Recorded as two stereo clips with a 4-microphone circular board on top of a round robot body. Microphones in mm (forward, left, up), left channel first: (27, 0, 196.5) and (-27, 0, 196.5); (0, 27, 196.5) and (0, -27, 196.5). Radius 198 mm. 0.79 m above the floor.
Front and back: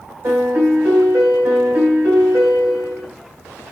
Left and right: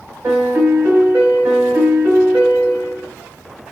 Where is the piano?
140° right, 0.5 m.